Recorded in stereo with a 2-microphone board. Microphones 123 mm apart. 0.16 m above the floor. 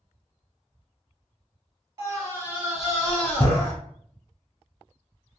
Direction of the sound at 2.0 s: 35° right (ahead or behind).